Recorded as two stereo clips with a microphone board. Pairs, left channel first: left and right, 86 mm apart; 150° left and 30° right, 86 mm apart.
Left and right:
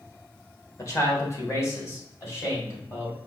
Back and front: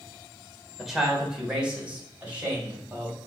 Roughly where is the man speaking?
Ahead left.